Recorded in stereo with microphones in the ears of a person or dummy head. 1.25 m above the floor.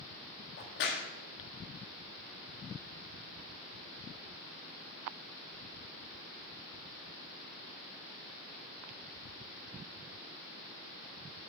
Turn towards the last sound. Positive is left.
turn(degrees=55)  # may be behind; listen again after turning